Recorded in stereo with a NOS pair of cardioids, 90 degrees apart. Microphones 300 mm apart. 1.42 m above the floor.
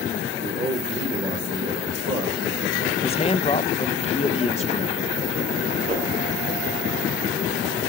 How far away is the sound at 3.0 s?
About 1.7 m.